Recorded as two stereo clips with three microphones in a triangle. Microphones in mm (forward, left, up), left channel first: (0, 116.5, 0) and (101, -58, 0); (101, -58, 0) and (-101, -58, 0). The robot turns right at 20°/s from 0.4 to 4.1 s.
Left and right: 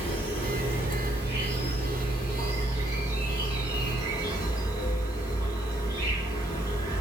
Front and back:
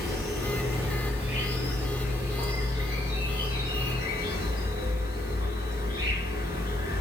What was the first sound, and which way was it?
An insect, 95° left.